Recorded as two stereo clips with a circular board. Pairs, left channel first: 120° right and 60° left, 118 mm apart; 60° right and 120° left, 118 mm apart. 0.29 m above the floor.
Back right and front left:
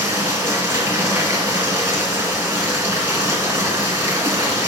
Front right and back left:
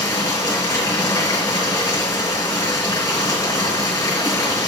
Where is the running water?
Straight ahead, 3.5 m.